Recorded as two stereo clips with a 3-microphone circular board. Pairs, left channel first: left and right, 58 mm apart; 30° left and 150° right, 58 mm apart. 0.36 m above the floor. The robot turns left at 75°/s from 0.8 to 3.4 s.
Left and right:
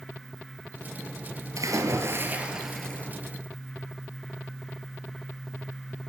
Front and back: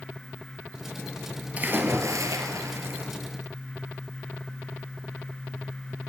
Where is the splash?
90° right, 1.2 m; by 3.1 s 155° left, 1.2 m.